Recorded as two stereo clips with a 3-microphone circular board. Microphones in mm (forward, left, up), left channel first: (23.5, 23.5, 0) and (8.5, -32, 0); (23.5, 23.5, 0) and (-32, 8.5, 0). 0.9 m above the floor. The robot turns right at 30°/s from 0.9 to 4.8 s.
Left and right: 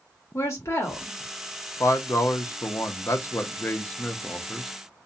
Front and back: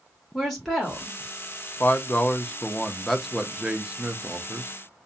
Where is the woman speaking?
105° left, 1.4 m; by 1.2 s 115° left, 1.4 m.